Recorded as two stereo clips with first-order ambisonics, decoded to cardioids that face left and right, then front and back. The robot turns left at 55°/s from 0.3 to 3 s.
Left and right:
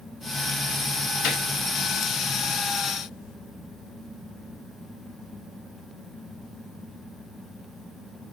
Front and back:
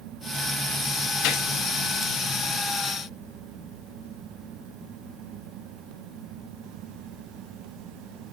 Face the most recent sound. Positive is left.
turn(degrees=-55)